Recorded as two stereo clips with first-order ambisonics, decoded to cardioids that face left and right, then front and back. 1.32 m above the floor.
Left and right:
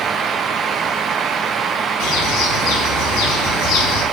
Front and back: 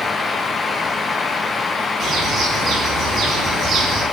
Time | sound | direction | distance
2.0 | a bird | 120° left | 5.5 m